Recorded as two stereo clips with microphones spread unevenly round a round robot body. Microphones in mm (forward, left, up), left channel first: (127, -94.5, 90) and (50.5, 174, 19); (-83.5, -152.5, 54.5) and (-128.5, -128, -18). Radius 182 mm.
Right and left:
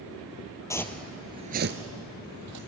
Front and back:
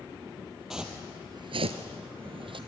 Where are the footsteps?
5° right, 1.5 m; by 2.6 s 155° left, 1.9 m.